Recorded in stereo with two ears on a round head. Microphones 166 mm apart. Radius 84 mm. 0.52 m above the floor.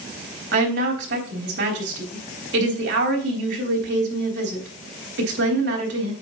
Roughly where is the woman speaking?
Right.